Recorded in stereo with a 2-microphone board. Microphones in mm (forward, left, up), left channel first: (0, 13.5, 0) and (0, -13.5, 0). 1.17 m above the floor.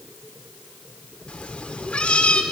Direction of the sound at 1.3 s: 45° left (ahead or behind).